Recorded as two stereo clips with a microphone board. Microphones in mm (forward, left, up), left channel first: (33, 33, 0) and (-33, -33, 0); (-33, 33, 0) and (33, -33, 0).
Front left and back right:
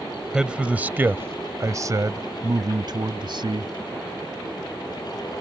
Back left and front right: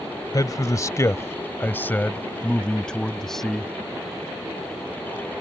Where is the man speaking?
150° left; by 3.7 s 135° right.